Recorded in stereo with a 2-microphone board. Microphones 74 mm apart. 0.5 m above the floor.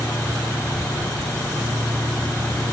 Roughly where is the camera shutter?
No camera shutter in this recording.